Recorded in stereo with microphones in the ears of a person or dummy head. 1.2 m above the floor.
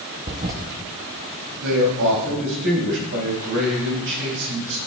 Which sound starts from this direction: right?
A man speaking, at 1.6 s.